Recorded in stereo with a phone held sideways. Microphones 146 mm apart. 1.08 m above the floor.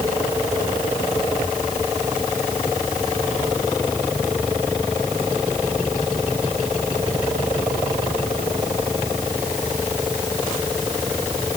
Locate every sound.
Only background noise.